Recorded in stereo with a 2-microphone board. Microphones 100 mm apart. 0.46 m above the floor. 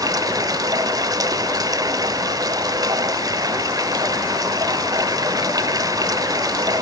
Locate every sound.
0.0 s running water: 40° right (ahead or behind), 0.7 m